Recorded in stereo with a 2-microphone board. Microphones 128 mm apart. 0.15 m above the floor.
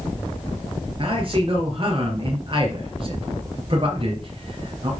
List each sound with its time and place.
1.0 s a man speaking: 45° right (ahead or behind), 3.5 m